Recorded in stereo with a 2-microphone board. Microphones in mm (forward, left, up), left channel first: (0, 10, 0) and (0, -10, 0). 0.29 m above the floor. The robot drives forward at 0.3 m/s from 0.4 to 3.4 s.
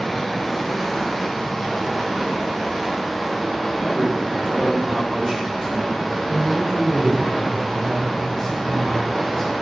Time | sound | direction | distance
0.0 | running water | 10° left (ahead or behind) | 0.9 m
3.8 | a man speaking | 40° right (ahead or behind) | 1.8 m
6.2 | a man speaking | 20° left (ahead or behind) | 1.5 m